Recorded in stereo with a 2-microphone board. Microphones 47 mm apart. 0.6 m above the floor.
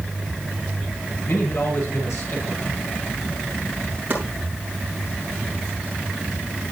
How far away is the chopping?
About 8 m.